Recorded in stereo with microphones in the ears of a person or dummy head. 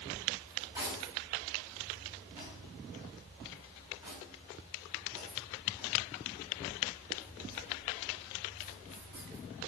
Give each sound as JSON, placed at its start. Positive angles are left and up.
{"t": 0.5, "sound": "cutlery clinking", "side_deg": -20, "distance_m": 7.0}